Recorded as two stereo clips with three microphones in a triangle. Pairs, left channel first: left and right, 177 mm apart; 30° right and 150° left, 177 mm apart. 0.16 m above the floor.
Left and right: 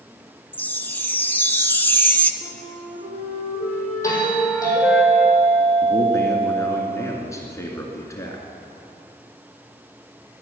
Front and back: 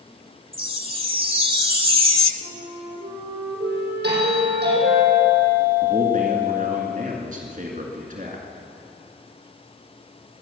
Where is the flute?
175° left, 4 m.